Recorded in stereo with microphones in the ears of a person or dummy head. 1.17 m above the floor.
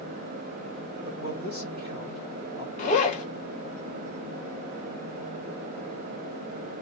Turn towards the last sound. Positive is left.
turn(degrees=40)  # may be behind; listen again after turning